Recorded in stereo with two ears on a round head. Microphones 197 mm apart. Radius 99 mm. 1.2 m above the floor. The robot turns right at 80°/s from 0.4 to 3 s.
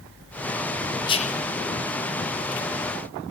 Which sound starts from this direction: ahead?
Whispering, at 1.1 s.